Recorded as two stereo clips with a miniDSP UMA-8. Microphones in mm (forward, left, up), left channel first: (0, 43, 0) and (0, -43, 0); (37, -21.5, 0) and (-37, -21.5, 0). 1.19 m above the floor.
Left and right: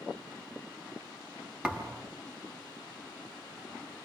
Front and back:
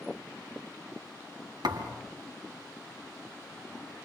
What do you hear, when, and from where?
1.6 s a thud: 165° right, 4 m